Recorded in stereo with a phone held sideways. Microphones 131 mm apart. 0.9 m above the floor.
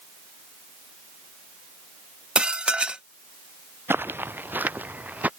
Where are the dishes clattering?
10° right (ahead or behind).